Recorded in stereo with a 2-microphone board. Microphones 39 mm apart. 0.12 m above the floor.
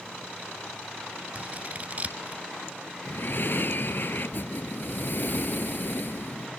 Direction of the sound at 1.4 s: 35° right (ahead or behind).